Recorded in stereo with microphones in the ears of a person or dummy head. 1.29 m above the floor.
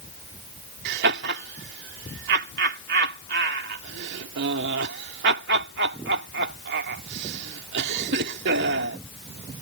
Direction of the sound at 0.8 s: 70° right (ahead or behind).